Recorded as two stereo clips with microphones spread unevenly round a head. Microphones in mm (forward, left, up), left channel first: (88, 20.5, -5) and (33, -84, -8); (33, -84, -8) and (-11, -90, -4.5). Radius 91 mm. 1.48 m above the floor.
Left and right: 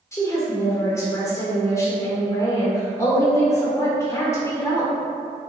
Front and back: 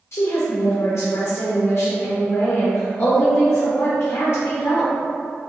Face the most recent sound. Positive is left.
turn(degrees=-5)